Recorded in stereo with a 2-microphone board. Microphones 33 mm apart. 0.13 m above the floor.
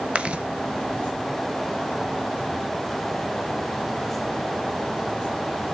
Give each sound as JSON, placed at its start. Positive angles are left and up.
{"t": 0.1, "sound": "chewing", "side_deg": -35, "distance_m": 0.6}